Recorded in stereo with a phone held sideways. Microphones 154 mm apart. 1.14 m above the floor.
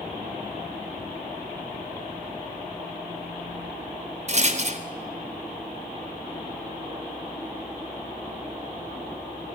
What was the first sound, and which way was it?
A rattle, 45° right (ahead or behind).